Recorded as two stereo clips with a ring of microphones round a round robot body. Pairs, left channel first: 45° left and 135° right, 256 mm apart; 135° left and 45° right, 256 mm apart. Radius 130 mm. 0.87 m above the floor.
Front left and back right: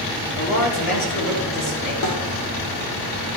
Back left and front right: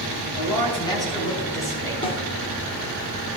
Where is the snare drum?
65° left, 3 m.